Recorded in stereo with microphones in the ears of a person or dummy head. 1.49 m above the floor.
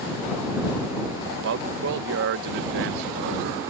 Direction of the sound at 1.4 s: 65° right (ahead or behind).